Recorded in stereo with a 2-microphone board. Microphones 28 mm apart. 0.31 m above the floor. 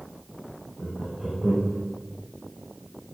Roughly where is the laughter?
Right.